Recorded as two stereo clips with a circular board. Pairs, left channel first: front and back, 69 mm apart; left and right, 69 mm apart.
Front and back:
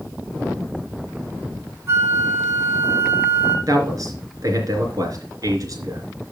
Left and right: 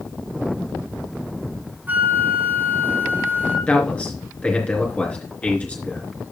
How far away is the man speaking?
About 3.5 m.